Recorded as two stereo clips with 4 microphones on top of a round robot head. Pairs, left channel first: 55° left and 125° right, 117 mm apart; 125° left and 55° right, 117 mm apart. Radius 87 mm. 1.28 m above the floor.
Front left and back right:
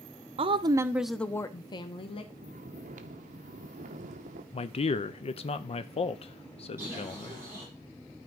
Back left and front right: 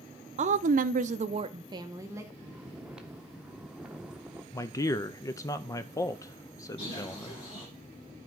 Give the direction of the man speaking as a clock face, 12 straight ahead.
10 o'clock.